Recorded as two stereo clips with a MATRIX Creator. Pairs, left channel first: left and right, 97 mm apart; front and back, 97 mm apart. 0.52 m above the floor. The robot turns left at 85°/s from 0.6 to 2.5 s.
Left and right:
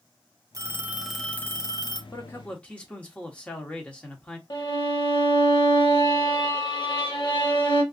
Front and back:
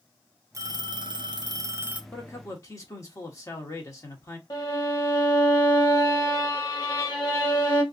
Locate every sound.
0.5 s a phone ringing: 135° right, 0.6 m; by 2.0 s 105° left, 0.6 m
2.1 s a man speaking: 55° left, 0.9 m; by 4.4 s 25° left, 0.9 m
4.5 s a violin: 50° left, 0.8 m